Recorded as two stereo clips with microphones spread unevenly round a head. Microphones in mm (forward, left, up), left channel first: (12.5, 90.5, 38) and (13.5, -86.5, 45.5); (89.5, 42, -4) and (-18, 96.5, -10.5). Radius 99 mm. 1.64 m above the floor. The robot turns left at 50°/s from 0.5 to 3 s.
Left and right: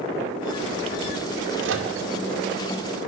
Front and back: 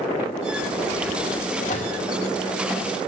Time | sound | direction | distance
1.6 | a microwave | 65° right | 2.5 m